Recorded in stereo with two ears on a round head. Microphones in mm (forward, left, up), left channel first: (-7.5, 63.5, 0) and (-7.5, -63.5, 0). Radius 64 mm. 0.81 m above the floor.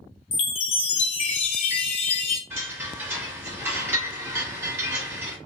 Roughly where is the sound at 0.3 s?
Left.